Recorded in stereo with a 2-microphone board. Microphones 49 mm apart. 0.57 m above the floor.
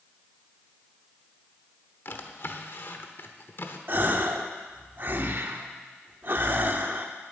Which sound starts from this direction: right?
A gasp, at 3.9 s.